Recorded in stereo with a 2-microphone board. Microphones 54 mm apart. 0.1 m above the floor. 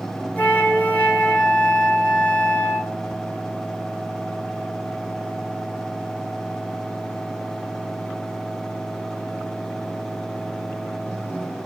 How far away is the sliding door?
I don't hear a sliding door.